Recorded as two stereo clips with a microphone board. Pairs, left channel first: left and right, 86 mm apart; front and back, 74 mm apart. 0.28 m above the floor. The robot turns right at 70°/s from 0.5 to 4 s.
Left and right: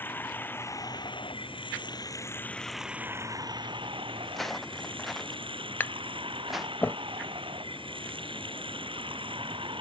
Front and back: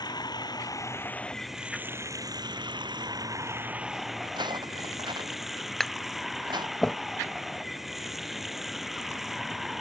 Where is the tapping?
80° left.